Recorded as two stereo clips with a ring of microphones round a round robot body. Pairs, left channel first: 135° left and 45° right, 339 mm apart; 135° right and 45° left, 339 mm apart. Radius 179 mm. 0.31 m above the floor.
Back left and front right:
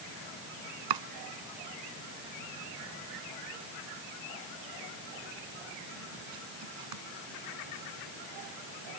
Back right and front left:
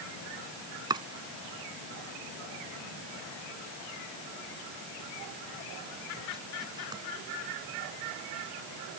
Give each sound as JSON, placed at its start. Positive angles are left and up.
{"t": 0.9, "sound": "chopping", "azimuth_deg": -30}